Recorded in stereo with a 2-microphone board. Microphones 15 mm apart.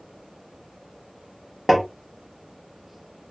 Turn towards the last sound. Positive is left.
turn(degrees=0)  # may be behind; listen again after turning